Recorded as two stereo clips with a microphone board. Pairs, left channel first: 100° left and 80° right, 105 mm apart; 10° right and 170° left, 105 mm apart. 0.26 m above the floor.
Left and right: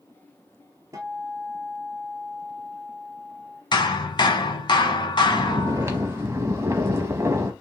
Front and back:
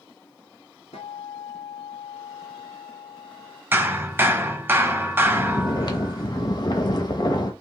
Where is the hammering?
105° left, 0.6 m.